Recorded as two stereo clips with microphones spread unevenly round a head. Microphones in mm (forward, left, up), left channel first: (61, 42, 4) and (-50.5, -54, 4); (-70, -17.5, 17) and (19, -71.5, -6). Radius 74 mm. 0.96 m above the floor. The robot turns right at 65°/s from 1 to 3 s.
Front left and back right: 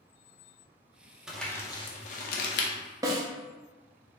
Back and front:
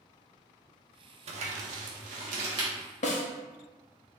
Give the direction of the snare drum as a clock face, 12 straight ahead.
7 o'clock.